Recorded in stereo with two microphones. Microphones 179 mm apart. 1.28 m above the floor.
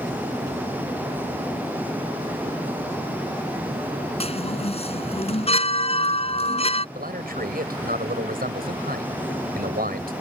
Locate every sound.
4.2 s a chime: 35° left (ahead or behind)
7.0 s a man speaking: 60° right (ahead or behind)